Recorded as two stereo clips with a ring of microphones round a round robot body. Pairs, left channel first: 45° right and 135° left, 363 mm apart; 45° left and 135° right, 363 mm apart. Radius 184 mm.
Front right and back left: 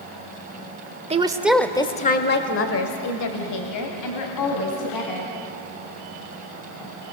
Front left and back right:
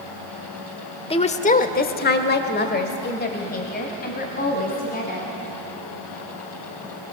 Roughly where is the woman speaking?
Left.